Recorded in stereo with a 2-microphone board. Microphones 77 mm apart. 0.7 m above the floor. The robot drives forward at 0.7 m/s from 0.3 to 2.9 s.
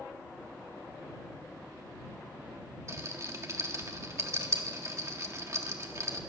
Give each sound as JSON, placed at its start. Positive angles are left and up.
{"t": 2.9, "sound": "a rattle", "side_deg": -40, "distance_m": 1.5}